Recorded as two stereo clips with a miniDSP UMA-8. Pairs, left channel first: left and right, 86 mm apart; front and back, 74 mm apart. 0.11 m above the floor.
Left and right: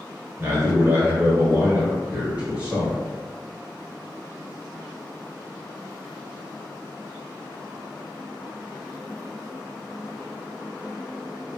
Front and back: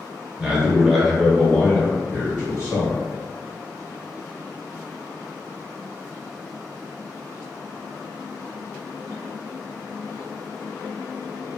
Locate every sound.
0.4 s a man speaking: 110° right, 1.3 m; by 3.0 s 20° right, 1.5 m